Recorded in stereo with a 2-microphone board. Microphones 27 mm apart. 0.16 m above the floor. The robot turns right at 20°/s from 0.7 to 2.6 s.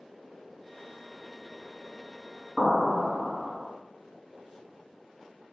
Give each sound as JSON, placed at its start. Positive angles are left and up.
{"t": 2.6, "sound": "an explosion", "side_deg": -20, "distance_m": 1.0}